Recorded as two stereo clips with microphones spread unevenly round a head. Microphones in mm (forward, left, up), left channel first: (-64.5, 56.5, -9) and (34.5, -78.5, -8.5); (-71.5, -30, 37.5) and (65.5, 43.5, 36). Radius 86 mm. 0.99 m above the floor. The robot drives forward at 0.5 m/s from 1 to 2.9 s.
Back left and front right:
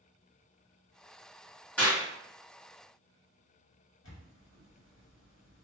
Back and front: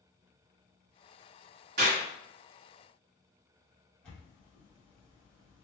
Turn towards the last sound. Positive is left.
turn(degrees=125)